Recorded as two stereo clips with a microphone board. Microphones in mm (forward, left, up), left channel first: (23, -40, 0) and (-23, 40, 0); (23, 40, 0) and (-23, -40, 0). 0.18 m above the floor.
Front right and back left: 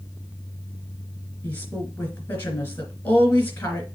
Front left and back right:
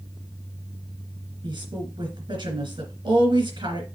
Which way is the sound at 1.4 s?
125° right.